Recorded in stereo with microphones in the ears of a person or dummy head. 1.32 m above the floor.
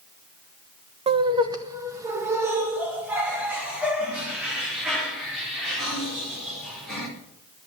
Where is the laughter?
35° right (ahead or behind), 1.0 m; by 7.1 s 5° right (ahead or behind), 4.5 m.